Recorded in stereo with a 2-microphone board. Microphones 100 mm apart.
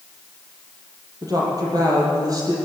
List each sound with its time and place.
1.2 s a woman speaking: 40° right (ahead or behind), 7 m